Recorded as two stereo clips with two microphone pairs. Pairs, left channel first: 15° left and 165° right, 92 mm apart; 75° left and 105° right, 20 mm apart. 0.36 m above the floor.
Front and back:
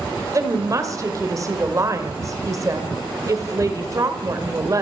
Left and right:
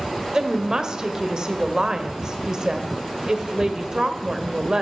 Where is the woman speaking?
145° right, 1.6 m.